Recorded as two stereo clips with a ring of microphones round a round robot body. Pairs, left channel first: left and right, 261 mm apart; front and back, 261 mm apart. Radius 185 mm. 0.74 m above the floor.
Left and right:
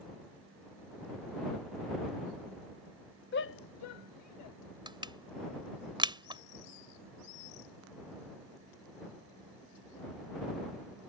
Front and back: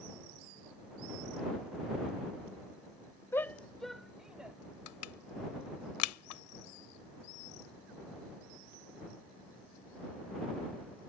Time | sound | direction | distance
3.3 | a shout | 80° left | ?
4.9 | crushing | 20° right | ?